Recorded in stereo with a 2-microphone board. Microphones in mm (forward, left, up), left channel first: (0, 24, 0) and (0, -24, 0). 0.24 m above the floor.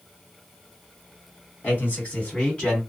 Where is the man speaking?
35° left (ahead or behind), 1.8 m; by 2.8 s 15° left (ahead or behind), 1.9 m.